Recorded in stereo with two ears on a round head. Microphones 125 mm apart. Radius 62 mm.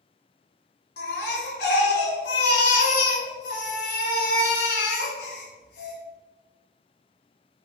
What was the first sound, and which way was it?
A baby crying, 85° left.